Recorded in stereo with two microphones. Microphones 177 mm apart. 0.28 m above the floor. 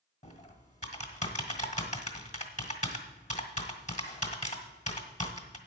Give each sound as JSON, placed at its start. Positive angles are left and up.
{"t": 0.2, "sound": "typing on a keyboard", "side_deg": 45, "distance_m": 1.4}